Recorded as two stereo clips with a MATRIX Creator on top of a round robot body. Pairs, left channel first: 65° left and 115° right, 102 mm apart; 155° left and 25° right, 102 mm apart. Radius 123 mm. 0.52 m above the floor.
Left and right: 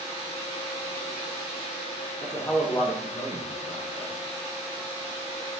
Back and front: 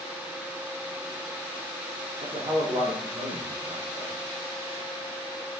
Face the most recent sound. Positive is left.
turn(degrees=35)